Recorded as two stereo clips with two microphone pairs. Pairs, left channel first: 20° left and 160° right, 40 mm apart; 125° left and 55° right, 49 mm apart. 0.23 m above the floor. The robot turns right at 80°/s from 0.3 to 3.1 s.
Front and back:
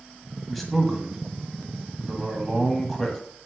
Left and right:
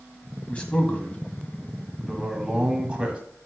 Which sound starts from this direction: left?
A man speaking, at 0.5 s.